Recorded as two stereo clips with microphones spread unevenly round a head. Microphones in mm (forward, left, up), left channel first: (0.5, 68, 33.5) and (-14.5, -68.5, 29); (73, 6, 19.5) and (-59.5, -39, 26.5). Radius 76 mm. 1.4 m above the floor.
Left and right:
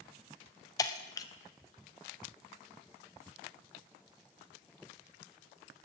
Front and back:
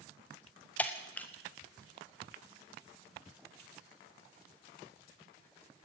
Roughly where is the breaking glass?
Left.